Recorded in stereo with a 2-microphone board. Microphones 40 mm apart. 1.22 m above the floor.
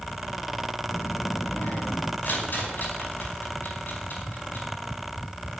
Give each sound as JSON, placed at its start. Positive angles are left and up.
{"t": 0.9, "sound": "a child speaking", "side_deg": 85, "distance_m": 1.2}
{"t": 2.2, "sound": "a rattle", "side_deg": 50, "distance_m": 5.0}